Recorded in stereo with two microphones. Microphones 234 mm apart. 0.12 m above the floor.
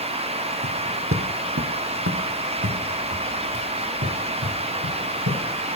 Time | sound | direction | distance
0.6 | footsteps | 55° right (ahead or behind) | 1.7 m